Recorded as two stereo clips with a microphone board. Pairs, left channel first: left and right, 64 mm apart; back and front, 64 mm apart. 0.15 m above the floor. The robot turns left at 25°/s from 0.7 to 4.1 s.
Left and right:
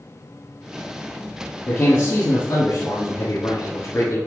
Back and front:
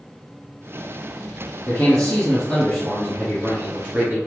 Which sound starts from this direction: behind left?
A man speaking, at 1.7 s.